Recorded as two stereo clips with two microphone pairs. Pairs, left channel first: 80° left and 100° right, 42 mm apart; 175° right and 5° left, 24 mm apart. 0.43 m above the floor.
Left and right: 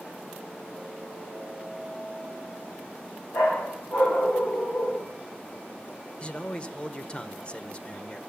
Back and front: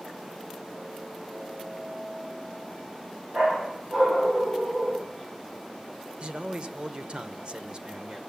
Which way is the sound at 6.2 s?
30° left.